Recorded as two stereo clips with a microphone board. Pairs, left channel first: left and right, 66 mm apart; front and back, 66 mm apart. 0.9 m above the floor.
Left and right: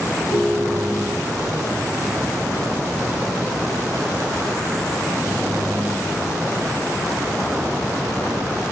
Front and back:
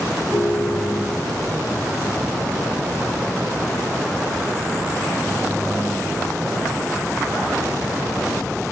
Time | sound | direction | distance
0.3 | a ringtone | 110° left | 4 m